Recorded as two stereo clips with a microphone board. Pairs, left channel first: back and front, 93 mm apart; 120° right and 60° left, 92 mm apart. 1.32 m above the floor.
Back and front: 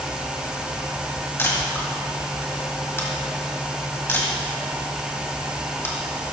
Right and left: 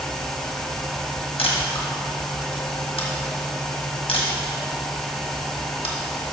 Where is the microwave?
I don't hear a microwave.